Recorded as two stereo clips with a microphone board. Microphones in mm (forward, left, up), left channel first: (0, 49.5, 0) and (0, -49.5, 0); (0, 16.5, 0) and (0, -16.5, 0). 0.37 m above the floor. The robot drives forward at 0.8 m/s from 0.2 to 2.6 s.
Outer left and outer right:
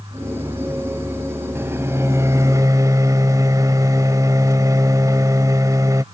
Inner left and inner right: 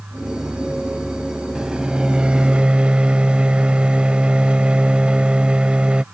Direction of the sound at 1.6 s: 25° right (ahead or behind).